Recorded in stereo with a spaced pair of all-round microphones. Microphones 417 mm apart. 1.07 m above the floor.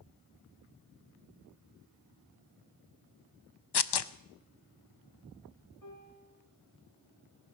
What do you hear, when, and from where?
3.7 s tearing paper: 65° left (ahead or behind), 0.5 m
5.8 s a piano: 45° left (ahead or behind), 3 m